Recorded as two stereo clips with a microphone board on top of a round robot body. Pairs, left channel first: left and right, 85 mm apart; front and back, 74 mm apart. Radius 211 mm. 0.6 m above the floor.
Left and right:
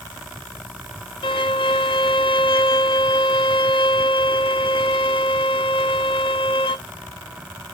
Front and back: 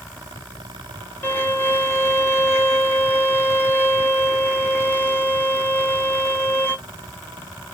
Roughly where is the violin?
Ahead left.